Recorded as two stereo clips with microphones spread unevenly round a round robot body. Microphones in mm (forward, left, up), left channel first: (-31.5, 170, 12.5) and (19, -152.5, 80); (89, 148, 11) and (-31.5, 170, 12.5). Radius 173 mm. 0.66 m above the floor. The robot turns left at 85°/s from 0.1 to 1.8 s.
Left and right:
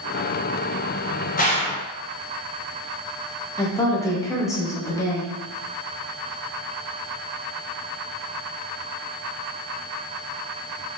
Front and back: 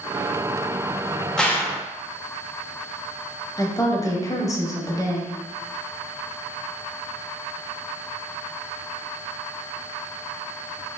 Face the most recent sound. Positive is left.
turn(degrees=35)